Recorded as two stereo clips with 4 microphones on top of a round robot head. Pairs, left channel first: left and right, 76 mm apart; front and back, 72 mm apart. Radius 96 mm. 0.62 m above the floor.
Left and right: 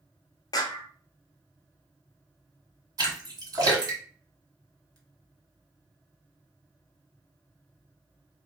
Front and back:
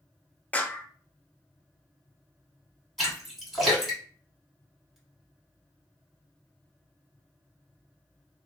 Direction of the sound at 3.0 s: 95° right.